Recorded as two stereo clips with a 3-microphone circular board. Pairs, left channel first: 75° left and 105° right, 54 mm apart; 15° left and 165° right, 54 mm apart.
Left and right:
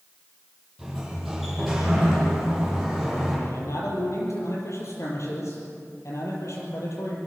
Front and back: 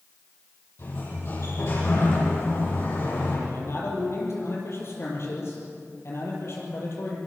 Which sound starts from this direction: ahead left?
A man speaking, at 3.5 s.